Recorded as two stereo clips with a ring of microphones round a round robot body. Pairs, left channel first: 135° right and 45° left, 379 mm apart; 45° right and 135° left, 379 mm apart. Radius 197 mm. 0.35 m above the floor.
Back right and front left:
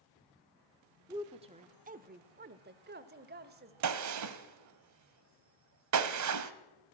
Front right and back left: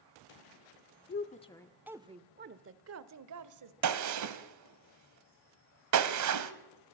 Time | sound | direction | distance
1.1 | a woman speaking | 25° right | 1.0 m
3.8 | a gunshot | 90° left | 1.2 m